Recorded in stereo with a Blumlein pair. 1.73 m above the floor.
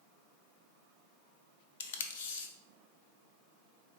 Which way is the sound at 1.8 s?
55° left.